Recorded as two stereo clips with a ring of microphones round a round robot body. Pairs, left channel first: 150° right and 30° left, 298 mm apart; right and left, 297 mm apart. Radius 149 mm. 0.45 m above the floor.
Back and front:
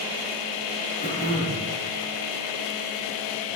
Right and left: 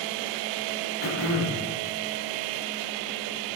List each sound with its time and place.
1.0 s throat clearing: 80° right, 2.5 m